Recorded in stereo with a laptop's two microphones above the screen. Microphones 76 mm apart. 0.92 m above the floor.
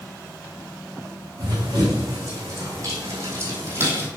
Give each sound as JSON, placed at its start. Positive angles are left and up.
{"t": 1.4, "sound": "running footsteps", "side_deg": -45, "distance_m": 3.0}